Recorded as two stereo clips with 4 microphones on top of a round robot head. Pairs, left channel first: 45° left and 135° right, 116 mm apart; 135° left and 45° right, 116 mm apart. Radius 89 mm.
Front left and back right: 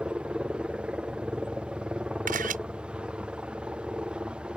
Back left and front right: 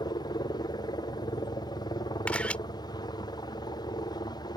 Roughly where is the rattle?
No rattle in this recording.